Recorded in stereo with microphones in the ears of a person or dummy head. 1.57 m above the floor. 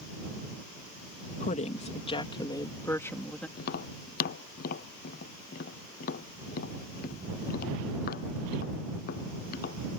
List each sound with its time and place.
1.4 s a woman speaking: 40° left (ahead or behind); by 3.5 s 5° left (ahead or behind)
3.6 s tapping: 50° left (ahead or behind)